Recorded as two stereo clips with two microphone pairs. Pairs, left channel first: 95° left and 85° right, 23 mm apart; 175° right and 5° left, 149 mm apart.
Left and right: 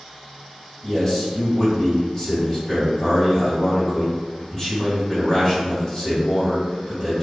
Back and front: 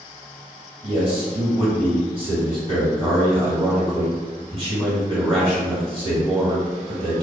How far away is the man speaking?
About 1.5 m.